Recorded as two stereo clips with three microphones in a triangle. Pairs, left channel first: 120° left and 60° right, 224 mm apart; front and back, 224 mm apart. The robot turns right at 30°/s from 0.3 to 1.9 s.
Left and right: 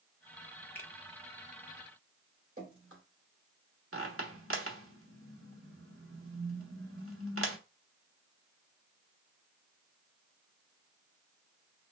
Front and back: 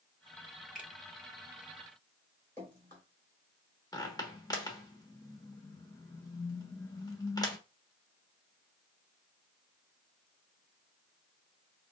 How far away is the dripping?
About 3 m.